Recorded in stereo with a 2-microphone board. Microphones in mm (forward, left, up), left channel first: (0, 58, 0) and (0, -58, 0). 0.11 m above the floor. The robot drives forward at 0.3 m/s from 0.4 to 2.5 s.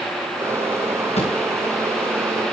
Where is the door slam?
70° left (ahead or behind), 9 m.